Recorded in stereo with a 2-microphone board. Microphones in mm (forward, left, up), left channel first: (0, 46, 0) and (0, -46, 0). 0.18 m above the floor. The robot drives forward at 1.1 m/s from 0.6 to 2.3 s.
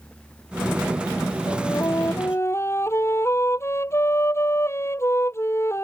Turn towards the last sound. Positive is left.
turn(degrees=30)  # may be behind; listen again after turning